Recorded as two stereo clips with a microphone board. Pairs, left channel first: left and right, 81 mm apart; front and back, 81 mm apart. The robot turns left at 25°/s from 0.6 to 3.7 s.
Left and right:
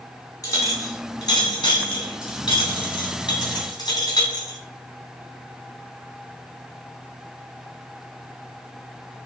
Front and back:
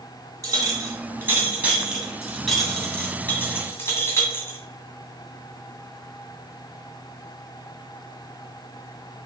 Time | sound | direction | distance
0.4 | a clink | 135° left | 2 m